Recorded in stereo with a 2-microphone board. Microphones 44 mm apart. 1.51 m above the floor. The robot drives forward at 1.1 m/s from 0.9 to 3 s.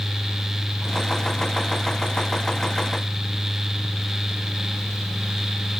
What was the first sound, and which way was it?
Only background noise.